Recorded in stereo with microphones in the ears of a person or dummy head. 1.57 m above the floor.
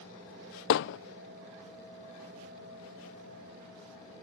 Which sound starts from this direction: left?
Hammering, at 0.7 s.